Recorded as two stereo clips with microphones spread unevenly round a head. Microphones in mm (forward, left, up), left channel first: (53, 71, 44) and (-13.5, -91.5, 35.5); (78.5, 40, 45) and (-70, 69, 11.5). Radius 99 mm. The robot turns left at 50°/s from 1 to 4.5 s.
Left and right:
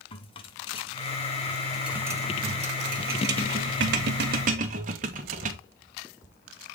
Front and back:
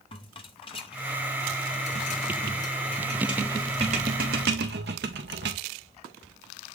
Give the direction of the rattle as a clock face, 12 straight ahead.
11 o'clock.